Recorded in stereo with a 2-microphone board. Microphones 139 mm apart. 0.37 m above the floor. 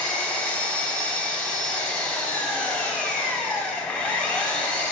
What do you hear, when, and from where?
0.0 s an engine running: 5° left (ahead or behind), 1.2 m